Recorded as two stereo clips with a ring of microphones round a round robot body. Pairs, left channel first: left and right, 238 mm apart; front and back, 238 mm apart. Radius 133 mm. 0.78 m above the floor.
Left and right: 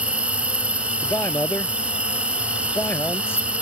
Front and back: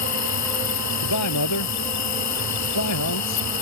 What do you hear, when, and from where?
0.0 s an insect: 5° right
1.0 s a man speaking: 10° left